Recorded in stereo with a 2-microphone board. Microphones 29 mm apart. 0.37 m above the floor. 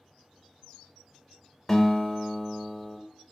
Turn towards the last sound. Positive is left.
turn(degrees=10)  # may be behind; listen again after turning